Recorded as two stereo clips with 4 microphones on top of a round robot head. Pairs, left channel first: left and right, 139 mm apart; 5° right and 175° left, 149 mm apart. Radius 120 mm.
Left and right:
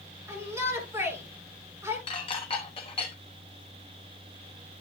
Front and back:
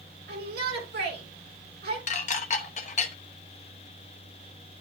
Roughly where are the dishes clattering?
Ahead left.